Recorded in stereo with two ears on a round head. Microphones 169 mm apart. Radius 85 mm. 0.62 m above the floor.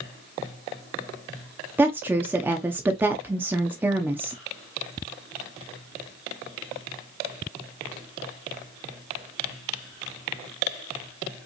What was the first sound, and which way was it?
A woman speaking, 10° right (ahead or behind).